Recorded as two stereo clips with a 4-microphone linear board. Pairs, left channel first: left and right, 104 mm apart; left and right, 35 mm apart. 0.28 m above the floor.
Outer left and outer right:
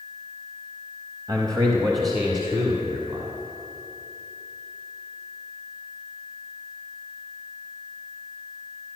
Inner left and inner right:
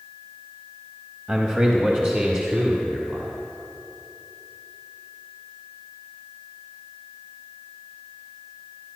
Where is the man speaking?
40° right (ahead or behind), 1.3 m; by 3.3 s 45° right (ahead or behind), 2 m.